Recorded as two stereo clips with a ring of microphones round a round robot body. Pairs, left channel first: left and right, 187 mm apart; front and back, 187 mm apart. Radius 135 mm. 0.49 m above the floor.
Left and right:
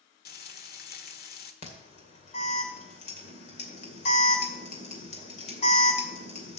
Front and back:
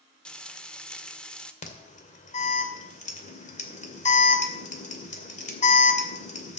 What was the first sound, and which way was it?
Frying, 85° left.